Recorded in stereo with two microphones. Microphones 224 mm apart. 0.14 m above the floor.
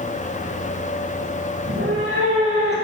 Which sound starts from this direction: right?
A cat meowing, at 1.6 s.